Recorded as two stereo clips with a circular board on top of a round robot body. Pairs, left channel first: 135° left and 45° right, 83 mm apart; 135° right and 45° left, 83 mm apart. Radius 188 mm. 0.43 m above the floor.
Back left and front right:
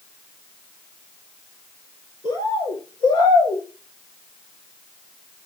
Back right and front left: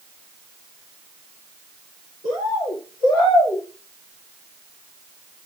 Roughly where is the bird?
Behind.